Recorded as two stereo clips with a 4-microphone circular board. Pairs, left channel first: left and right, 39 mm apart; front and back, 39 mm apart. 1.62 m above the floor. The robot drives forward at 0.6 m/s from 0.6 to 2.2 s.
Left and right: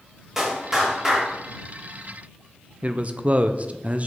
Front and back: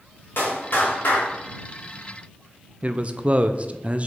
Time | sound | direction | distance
0.4 | a clap | 10° right | 3 m
2.8 | a man speaking | 135° right | 0.6 m